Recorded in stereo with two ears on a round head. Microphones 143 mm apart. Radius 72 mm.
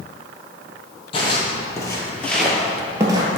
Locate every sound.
1.1 s footsteps: 30° left (ahead or behind), 2 m; by 3.3 s 25° right (ahead or behind), 1.6 m